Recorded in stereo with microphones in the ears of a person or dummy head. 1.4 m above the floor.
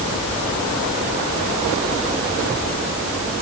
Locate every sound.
Only background noise.